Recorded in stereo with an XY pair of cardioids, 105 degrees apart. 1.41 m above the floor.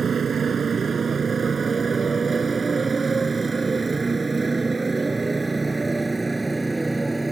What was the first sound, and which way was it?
A motorcycle, 40° right.